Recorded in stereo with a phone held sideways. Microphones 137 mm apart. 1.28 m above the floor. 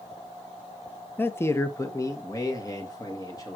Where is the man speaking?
15° left (ahead or behind), 0.5 m; by 3.6 s 30° left (ahead or behind), 1.8 m.